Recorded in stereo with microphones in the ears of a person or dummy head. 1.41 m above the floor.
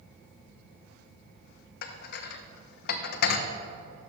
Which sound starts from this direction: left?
Dishes clattering, at 1.8 s.